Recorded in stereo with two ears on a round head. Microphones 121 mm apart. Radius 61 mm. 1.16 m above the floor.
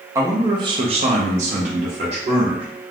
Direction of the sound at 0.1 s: 20° right (ahead or behind).